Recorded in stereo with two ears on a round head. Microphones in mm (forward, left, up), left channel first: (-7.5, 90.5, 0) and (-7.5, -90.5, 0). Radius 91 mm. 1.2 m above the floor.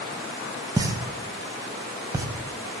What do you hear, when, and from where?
0.8 s a pop: 20° right (ahead or behind), 0.7 m